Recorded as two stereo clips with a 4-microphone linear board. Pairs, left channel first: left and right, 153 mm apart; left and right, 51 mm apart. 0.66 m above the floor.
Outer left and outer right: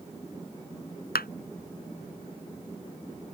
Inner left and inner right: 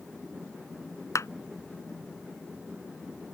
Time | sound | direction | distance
1.1 | a clap | 80° left | ?